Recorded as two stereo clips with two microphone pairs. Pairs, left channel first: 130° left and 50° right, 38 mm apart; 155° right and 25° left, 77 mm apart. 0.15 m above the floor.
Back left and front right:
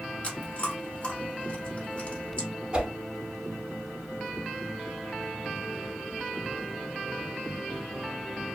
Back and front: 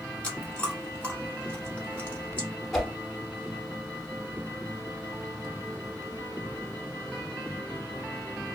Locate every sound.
0.2 s chewing: 145° left, 1.1 m
2.7 s a whoosh: 80° right, 0.7 m